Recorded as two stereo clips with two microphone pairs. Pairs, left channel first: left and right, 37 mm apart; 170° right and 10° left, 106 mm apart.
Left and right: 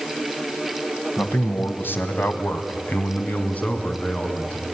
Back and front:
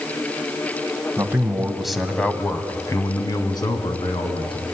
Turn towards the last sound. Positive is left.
turn(degrees=155)